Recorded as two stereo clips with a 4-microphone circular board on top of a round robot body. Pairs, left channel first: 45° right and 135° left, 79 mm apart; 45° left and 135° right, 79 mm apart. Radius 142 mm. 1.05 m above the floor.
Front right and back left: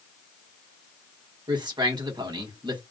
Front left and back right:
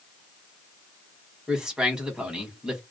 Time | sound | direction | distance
1.5 | a man speaking | 145° left | 1.3 m